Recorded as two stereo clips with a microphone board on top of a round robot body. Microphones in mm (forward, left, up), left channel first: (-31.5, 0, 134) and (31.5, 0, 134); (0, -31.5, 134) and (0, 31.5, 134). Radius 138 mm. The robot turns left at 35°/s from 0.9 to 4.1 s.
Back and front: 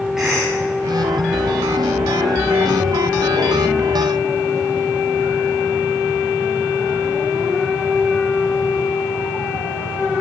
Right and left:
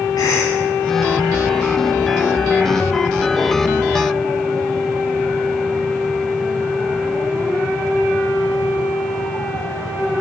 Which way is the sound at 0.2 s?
85° right.